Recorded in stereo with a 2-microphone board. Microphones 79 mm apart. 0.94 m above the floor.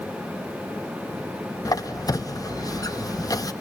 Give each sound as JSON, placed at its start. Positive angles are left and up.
{"t": 1.6, "sound": "a squeak", "side_deg": 50, "distance_m": 0.7}